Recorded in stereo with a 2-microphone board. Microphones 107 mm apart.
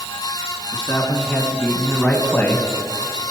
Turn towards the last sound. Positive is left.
turn(degrees=20)  # may be behind; listen again after turning